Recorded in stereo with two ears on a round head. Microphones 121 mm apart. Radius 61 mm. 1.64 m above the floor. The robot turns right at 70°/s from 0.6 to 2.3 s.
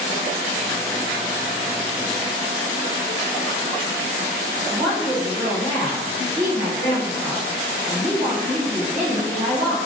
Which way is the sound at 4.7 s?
65° right (ahead or behind).